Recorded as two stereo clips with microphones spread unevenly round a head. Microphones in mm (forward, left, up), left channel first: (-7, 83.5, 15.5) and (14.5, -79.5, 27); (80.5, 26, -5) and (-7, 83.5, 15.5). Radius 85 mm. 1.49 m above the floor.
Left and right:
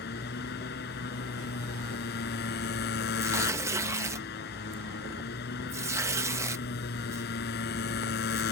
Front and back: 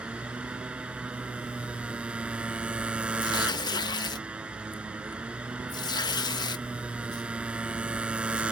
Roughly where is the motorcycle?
Left.